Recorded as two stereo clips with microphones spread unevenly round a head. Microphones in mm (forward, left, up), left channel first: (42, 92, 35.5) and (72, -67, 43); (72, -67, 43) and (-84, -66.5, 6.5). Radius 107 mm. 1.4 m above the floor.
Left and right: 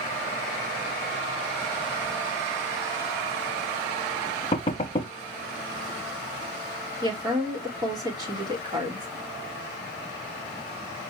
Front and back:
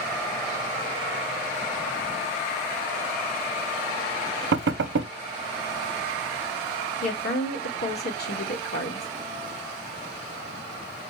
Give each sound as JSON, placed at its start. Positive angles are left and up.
{"t": 4.5, "sound": "knocking", "azimuth_deg": 170, "distance_m": 0.6}
{"t": 7.0, "sound": "a woman speaking", "azimuth_deg": -15, "distance_m": 4.0}